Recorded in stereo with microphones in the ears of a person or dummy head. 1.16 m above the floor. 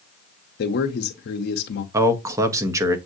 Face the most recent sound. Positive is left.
turn(degrees=-15)  # may be behind; listen again after turning